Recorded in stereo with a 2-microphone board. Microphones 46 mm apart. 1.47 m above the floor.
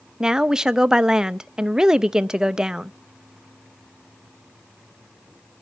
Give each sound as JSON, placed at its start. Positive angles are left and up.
{"t": 0.2, "sound": "a woman speaking", "side_deg": -15, "distance_m": 0.5}